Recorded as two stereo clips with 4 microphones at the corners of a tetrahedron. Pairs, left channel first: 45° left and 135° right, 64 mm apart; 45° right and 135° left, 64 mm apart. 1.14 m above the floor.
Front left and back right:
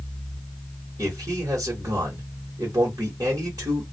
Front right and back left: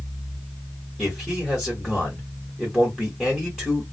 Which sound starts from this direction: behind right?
A man speaking, at 1.0 s.